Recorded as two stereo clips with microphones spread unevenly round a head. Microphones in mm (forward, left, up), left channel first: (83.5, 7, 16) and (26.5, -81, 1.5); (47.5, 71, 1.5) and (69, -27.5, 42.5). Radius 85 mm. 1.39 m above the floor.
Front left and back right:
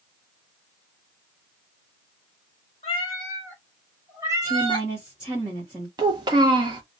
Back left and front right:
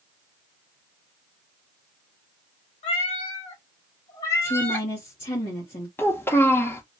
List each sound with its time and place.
2.8 s a cat meowing: 95° left, 1.1 m; by 4.9 s 135° right, 0.9 m
4.4 s a woman speaking: 150° left, 0.9 m
6.0 s a child speaking: 160° right, 0.6 m